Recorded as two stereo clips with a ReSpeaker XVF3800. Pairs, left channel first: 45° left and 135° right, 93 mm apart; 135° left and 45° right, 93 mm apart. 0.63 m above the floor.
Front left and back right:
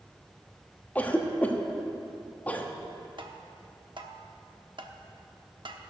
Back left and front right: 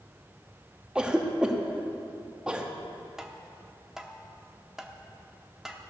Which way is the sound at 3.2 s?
130° right.